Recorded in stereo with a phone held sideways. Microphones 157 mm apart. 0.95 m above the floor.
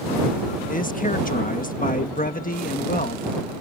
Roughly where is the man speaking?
Left.